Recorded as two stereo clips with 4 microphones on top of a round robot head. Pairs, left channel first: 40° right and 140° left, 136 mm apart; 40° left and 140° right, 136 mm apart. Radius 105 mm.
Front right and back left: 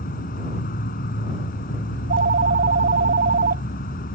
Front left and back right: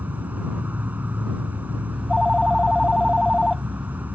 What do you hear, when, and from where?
0.0 s an insect: 60° right
1.9 s a phone ringing: 125° left